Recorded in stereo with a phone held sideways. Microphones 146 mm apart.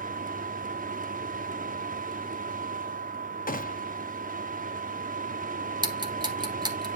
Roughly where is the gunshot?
Left.